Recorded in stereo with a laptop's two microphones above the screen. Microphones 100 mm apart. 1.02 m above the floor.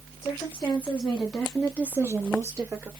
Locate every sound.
0.2 s a woman speaking: 25° left (ahead or behind), 1.5 m; by 2.9 s 35° right (ahead or behind), 1.2 m